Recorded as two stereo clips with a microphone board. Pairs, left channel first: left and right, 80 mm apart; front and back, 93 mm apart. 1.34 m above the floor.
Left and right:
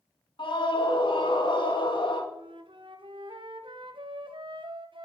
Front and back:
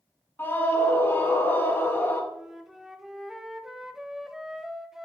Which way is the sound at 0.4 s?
70° left.